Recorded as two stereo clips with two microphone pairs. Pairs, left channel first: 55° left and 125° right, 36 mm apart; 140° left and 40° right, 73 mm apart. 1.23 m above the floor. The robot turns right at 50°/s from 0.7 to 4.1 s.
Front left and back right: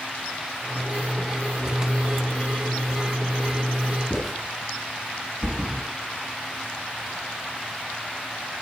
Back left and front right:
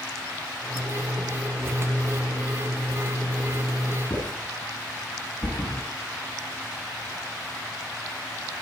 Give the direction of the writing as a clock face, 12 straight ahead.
7 o'clock.